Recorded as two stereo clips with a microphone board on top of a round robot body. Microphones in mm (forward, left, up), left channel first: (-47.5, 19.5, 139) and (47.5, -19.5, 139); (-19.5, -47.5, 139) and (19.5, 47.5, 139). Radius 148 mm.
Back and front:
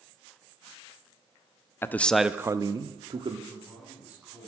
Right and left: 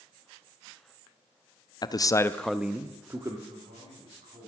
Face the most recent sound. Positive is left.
turn(degrees=55)